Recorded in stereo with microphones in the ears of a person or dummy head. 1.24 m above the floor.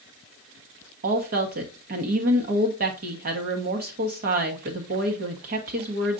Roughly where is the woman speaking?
Right.